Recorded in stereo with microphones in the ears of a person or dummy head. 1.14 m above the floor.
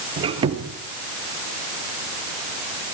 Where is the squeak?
30° right (ahead or behind), 3 m.